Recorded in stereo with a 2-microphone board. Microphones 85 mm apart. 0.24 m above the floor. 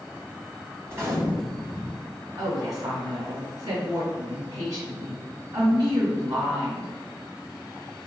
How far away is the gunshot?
About 1.1 m.